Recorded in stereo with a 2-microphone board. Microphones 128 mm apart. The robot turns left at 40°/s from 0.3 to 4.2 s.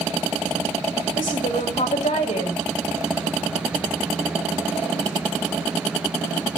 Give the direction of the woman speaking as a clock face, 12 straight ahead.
9 o'clock.